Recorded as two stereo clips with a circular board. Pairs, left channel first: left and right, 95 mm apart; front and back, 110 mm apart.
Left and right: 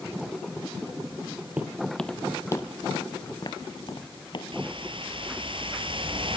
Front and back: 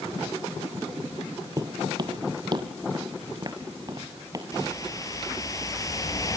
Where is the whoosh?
60° right, 3 m.